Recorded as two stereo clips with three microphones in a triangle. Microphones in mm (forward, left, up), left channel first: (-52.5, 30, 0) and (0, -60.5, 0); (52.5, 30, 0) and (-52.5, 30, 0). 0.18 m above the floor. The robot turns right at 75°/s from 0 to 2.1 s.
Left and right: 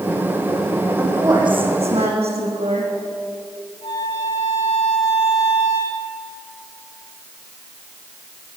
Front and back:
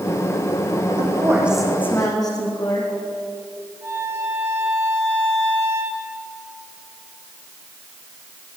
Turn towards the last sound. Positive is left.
turn(degrees=115)